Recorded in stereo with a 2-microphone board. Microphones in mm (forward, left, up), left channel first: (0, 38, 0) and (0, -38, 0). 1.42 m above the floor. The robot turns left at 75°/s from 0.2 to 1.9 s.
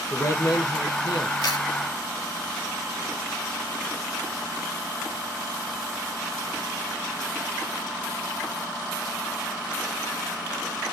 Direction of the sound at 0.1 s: 145° left.